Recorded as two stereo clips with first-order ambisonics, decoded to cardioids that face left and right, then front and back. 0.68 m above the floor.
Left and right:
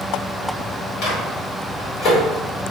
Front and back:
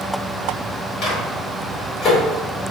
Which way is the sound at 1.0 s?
55° left.